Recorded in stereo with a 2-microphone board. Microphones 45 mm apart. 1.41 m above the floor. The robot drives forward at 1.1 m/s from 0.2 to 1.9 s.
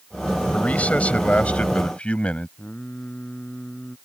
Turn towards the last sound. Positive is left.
turn(degrees=30)  # may be behind; listen again after turning